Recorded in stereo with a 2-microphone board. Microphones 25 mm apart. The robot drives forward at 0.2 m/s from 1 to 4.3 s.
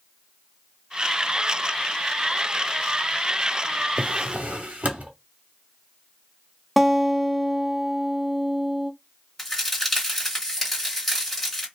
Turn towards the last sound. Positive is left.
turn(degrees=5)  # may be behind; listen again after turning